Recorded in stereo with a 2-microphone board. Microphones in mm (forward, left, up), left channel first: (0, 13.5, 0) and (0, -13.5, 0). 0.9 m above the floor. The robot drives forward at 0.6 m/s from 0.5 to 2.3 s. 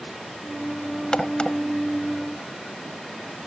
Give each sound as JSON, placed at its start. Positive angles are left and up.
{"t": 1.1, "sound": "a crack", "side_deg": 35}